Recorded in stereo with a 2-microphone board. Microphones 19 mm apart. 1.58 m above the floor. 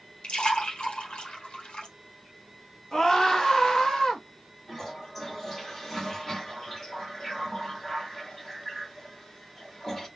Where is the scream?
35° left (ahead or behind), 1.4 m.